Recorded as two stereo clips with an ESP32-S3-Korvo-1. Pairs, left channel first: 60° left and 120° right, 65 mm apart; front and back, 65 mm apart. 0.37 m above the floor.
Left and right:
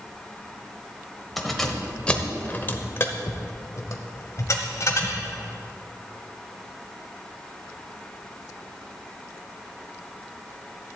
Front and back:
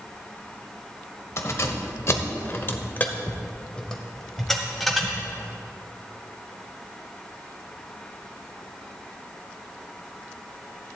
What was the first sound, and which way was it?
Keys jangling, 25° right.